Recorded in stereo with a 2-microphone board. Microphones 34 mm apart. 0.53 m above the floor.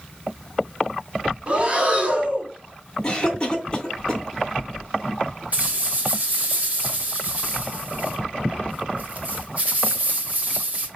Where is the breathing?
30° right (ahead or behind), 1.6 m.